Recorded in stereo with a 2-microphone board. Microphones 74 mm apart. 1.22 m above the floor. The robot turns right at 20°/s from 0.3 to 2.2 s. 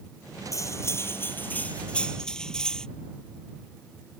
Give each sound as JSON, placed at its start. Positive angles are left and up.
{"t": 0.5, "sound": "cutlery clinking", "azimuth_deg": 135}